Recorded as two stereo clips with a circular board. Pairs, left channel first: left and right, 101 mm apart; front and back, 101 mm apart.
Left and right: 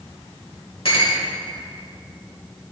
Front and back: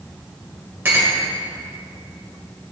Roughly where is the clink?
Left.